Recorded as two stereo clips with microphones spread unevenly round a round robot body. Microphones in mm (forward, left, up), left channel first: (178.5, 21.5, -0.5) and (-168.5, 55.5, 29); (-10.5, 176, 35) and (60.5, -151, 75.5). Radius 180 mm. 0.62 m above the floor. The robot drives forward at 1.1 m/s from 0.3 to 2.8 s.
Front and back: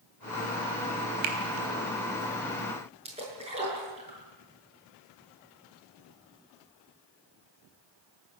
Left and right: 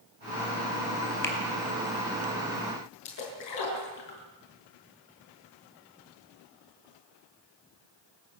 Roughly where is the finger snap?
Behind.